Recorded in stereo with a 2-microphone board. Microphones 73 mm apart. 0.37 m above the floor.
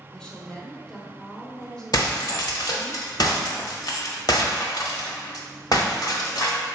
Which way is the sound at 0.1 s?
10° left (ahead or behind).